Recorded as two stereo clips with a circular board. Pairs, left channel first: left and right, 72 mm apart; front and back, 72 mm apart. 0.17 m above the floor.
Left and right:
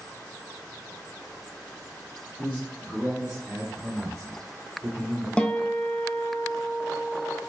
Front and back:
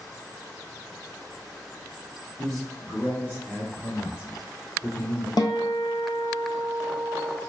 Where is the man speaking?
85° left, 1.6 m; by 5.3 s 45° right, 3.5 m.